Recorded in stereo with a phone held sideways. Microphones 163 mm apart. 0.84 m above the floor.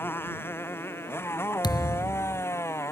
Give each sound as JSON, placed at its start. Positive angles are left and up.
{"t": 0.0, "sound": "a motorcycle", "side_deg": 15}
{"t": 1.6, "sound": "a thud", "side_deg": 25}